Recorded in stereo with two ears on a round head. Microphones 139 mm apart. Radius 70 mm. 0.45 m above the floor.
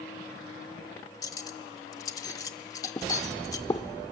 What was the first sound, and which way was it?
Cutlery clinking, 20° left (ahead or behind).